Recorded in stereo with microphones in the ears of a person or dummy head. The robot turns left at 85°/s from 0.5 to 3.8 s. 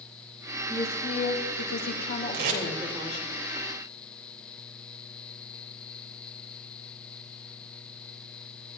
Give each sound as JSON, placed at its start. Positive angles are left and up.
{"t": 0.7, "sound": "a woman speaking", "azimuth_deg": 175, "distance_m": 3.0}
{"t": 2.3, "sound": "tape being pulled", "side_deg": -60, "distance_m": 3.5}